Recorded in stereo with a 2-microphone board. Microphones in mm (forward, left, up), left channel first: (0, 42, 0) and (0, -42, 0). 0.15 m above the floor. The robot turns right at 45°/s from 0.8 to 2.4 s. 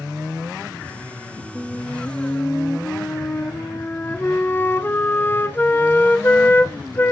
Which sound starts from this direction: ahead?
A flute, at 1.6 s.